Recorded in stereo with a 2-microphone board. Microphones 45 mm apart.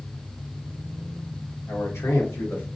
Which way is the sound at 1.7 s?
85° left.